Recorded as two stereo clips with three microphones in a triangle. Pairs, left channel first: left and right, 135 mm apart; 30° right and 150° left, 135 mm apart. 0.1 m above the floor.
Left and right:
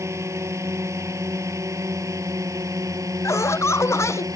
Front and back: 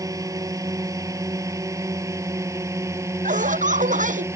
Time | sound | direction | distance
0.0 | a drone | 150° right | ?
3.2 | laughter | 160° left | ?